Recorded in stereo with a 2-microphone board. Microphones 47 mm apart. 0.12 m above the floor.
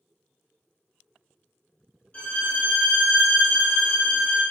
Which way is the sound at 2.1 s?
30° left (ahead or behind).